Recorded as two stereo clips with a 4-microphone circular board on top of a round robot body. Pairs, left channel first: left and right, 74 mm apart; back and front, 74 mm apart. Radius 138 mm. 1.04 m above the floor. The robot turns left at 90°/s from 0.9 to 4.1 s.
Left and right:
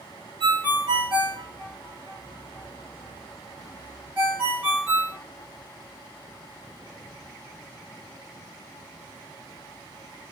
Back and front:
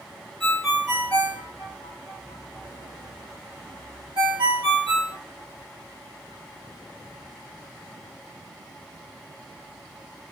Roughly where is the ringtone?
Right.